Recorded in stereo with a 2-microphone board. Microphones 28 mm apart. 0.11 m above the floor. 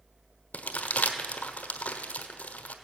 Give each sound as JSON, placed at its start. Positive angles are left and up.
{"t": 0.5, "sound": "crumpling", "side_deg": 70, "distance_m": 1.2}